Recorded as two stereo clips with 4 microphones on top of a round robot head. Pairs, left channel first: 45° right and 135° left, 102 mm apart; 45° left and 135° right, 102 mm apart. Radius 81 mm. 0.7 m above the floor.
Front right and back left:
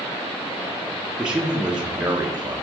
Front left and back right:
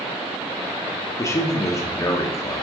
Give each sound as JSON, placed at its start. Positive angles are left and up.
{"t": 1.2, "sound": "a man speaking", "azimuth_deg": 60, "distance_m": 0.9}